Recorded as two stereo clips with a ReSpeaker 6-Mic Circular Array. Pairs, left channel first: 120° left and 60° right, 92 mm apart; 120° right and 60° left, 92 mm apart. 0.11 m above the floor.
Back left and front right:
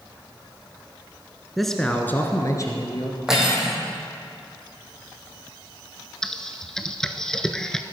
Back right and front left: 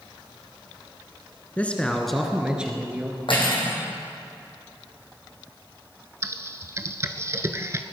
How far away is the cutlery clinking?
About 3.5 m.